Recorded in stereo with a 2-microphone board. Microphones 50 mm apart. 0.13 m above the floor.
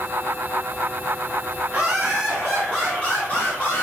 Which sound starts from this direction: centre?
Laughter, at 1.7 s.